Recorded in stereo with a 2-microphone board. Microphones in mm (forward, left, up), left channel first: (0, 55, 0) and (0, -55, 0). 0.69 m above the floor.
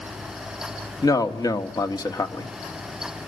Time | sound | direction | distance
1.0 | a man speaking | 35° left (ahead or behind) | 1.4 m